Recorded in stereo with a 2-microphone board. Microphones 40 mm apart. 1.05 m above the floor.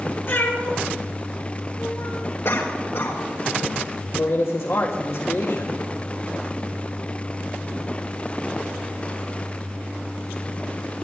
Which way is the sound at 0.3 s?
55° left (ahead or behind).